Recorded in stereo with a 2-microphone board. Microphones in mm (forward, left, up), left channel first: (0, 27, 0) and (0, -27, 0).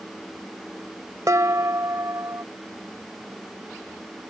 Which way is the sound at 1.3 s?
70° right (ahead or behind).